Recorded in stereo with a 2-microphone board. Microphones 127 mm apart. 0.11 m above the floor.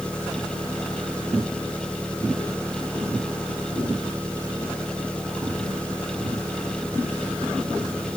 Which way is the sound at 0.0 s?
10° left (ahead or behind).